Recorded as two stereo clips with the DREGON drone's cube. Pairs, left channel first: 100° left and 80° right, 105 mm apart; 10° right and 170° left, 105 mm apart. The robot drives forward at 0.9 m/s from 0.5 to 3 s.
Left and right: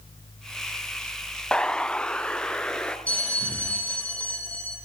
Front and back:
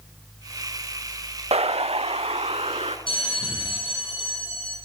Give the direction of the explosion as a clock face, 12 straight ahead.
6 o'clock.